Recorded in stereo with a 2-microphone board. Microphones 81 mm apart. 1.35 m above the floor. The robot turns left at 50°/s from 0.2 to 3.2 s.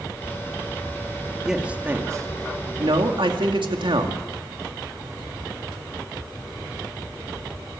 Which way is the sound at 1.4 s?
5° right (ahead or behind).